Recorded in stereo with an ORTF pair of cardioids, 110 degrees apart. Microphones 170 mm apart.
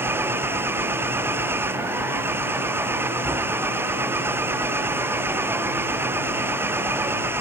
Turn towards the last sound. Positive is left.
turn(degrees=-10)